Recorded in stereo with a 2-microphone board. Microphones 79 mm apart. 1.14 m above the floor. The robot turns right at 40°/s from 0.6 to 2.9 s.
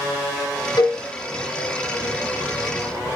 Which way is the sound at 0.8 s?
60° left (ahead or behind).